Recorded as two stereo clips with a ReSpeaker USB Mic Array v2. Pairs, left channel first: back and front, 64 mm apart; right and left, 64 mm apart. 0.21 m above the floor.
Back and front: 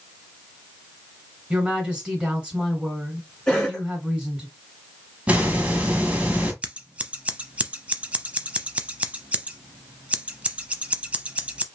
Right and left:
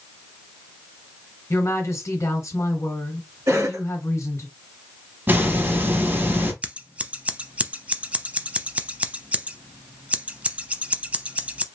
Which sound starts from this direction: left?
A cough, at 3.5 s.